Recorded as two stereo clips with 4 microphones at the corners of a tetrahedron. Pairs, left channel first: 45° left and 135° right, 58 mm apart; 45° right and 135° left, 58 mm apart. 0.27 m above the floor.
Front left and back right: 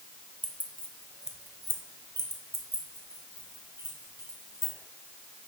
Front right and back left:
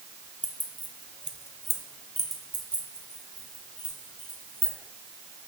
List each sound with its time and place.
0.4 s keys jangling: 90° left, 0.8 m; by 4.7 s 115° right, 2.5 m